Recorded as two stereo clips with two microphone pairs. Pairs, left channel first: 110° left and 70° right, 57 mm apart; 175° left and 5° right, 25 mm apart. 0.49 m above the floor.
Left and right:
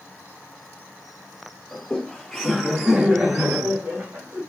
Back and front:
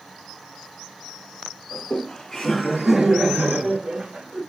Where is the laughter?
175° left, 1.1 m; by 4.4 s 10° right, 1.6 m.